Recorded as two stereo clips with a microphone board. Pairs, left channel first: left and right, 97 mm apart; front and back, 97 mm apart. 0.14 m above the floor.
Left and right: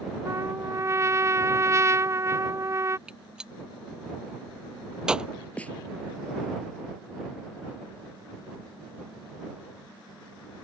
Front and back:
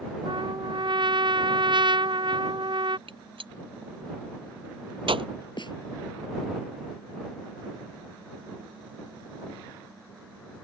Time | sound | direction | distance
0.2 | a trumpet | 145° right | ?
3.1 | a gunshot | 170° right | ?
5.6 | a snare drum | 15° left | ?